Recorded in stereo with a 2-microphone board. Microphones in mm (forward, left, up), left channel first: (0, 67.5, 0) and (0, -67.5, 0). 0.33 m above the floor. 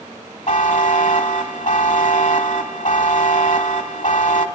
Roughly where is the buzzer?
Left.